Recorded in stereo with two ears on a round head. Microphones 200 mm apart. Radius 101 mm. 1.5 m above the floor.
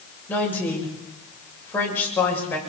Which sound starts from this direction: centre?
A woman speaking, at 0.3 s.